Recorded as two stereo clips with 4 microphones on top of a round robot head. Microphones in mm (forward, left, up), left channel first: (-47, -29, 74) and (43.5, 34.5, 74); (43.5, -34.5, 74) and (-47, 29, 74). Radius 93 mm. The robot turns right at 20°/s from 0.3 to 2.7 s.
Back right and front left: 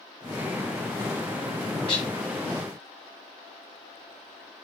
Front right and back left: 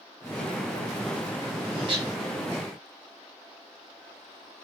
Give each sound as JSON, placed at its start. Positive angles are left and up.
{"t": 1.9, "sound": "dishes clattering", "azimuth_deg": 180, "distance_m": 1.3}